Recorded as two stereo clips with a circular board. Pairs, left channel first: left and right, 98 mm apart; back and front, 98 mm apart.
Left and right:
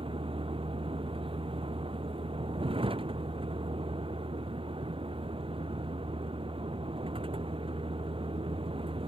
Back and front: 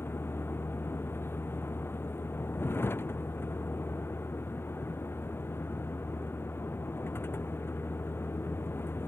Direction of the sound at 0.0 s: 115° right.